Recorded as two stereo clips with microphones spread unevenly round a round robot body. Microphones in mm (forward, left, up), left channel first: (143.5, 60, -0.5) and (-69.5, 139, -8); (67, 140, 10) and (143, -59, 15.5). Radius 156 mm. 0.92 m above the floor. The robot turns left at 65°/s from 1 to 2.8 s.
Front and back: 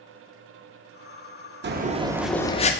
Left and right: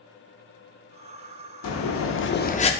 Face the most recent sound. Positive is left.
turn(degrees=35)